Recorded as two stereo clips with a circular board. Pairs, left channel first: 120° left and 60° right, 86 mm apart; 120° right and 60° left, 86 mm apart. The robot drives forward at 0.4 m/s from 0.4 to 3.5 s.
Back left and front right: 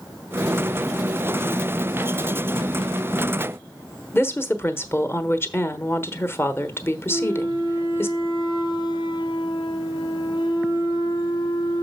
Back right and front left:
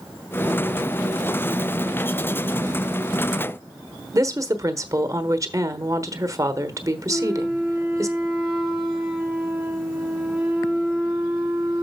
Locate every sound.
4.1 s a woman speaking: 80° left, 1.1 m
7.1 s a flute: 140° left, 2 m